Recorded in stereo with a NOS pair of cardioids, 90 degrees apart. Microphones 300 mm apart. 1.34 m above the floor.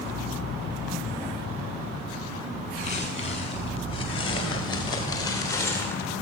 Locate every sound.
2.8 s footsteps: 25° left, 9 m; by 6.1 s 5° left, 7.5 m